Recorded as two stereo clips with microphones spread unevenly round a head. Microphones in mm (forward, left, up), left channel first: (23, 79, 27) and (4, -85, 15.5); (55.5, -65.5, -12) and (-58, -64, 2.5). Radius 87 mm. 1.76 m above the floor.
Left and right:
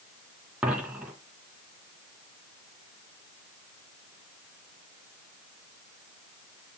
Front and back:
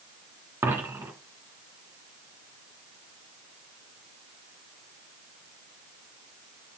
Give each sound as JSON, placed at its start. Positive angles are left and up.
{"t": 0.6, "sound": "a dropped coin", "azimuth_deg": 180, "distance_m": 1.8}